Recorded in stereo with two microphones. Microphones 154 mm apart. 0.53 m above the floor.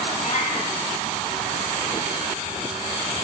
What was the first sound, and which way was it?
A cat meowing, 55° left (ahead or behind).